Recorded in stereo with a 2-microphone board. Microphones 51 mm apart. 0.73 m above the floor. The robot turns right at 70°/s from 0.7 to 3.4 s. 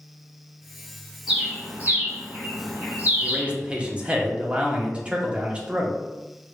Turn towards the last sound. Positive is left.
turn(degrees=-25)  # may be behind; listen again after turning